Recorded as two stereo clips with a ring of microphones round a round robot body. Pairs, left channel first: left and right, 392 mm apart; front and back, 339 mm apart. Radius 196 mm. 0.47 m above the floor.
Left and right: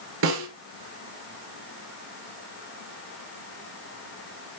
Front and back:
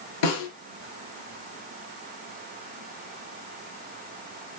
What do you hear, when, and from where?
0.2 s a snare drum: 30° right, 3 m